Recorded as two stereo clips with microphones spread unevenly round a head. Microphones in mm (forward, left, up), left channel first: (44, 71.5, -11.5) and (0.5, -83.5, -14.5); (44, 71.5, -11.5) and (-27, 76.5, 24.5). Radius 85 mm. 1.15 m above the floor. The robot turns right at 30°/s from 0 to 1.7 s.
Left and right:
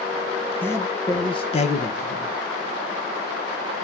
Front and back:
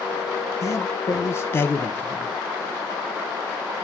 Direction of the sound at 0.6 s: 5° right.